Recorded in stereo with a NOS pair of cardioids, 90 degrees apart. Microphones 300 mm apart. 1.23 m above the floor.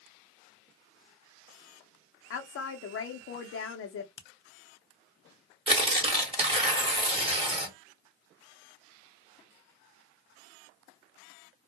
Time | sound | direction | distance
2.3 | a woman speaking | 50° left | 0.6 m
4.2 | a finger snap | 40° left | 0.7 m
5.7 | tearing paper | 20° right | 1.2 m